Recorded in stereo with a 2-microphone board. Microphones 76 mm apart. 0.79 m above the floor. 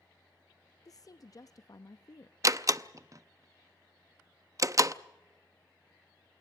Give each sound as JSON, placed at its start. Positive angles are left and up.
{"t": 0.8, "sound": "a woman speaking", "side_deg": 45, "distance_m": 0.6}
{"t": 2.4, "sound": "a door slam", "side_deg": -40, "distance_m": 0.5}